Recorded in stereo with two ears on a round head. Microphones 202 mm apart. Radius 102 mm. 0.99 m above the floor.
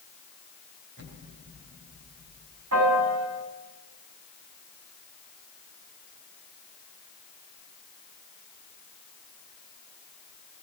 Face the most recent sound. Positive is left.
turn(degrees=-80)